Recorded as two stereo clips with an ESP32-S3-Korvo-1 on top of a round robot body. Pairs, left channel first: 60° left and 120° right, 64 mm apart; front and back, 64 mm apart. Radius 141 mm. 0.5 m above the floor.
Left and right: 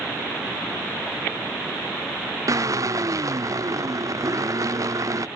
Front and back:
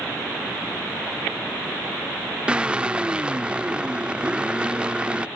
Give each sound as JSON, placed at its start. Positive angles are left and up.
{"t": 2.5, "sound": "a drill", "azimuth_deg": -110}